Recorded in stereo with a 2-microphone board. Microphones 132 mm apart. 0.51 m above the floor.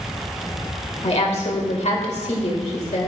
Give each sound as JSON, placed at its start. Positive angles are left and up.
{"t": 1.0, "sound": "a woman speaking", "side_deg": 55, "distance_m": 2.0}